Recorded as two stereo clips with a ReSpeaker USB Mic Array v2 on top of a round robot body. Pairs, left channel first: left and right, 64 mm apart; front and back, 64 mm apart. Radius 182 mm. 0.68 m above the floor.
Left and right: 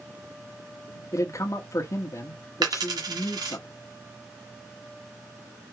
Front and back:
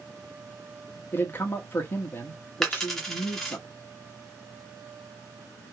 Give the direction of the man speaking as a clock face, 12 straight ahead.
10 o'clock.